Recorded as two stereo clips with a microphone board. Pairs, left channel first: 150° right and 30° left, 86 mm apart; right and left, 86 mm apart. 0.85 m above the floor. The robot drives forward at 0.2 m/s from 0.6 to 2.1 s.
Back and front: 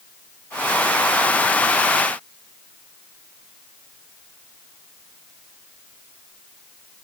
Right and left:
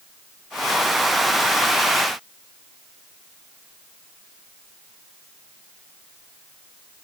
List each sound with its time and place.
Only background noise.